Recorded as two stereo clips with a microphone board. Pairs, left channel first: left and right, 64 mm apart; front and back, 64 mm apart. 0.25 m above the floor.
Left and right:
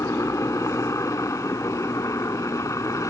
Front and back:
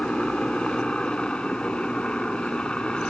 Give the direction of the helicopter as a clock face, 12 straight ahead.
10 o'clock.